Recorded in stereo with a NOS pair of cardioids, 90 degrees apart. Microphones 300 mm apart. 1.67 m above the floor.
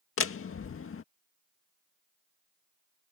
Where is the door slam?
45° left.